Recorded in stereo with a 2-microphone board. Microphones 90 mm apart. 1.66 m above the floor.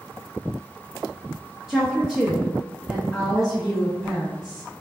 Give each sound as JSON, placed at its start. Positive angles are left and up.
{"t": 1.7, "sound": "a woman speaking", "side_deg": -5, "distance_m": 0.5}